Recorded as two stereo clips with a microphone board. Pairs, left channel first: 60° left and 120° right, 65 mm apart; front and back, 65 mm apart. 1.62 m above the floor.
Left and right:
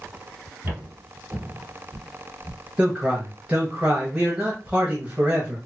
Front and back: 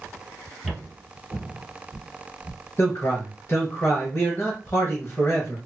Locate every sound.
0.6 s footsteps: 100° right, 1.9 m; by 2.6 s 35° left, 1.8 m
2.8 s a man speaking: 50° right, 1.0 m